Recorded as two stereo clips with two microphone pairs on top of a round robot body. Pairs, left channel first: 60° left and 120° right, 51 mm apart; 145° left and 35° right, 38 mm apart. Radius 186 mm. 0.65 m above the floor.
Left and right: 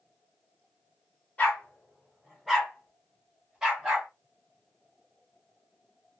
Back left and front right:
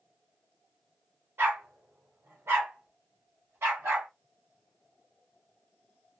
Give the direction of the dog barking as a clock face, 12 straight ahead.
12 o'clock.